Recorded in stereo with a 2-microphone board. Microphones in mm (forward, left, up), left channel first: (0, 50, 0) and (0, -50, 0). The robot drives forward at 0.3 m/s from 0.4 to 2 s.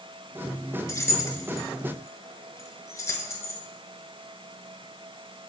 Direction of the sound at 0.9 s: 30° left (ahead or behind).